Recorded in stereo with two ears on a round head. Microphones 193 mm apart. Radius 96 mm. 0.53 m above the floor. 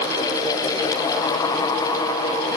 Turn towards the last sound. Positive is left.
No sound to turn to.